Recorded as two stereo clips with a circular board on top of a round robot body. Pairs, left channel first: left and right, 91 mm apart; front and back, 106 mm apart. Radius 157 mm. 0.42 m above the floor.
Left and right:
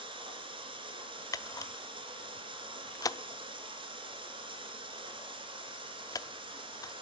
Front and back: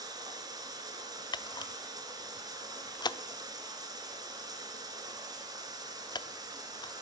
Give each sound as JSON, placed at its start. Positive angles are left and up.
{"t": 0.0, "sound": "running water", "azimuth_deg": -125, "distance_m": 2.0}
{"t": 1.3, "sound": "a camera shutter", "azimuth_deg": 45, "distance_m": 0.8}